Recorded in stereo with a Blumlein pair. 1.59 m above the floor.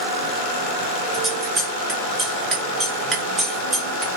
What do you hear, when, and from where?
1.1 s scissors: 20° right, 0.7 m